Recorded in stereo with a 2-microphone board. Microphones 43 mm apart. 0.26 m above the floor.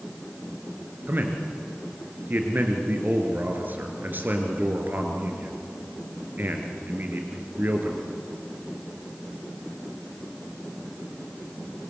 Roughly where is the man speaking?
Right.